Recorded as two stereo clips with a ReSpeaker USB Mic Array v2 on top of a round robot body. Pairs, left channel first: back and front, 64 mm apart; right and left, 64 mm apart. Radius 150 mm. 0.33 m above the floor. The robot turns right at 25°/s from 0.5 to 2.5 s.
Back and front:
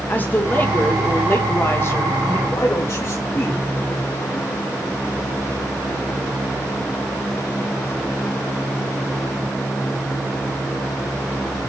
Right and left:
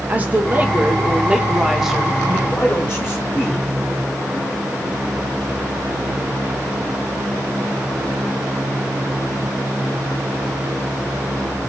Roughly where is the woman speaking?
Behind left.